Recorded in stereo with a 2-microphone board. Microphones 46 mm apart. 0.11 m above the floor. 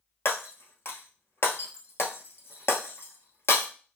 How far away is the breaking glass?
About 0.7 m.